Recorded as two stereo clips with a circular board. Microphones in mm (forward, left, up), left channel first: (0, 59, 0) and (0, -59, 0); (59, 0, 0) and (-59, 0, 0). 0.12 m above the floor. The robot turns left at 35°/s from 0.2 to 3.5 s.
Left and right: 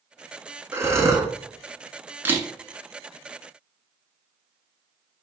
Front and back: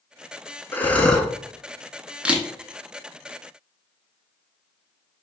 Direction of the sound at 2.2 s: 115° right.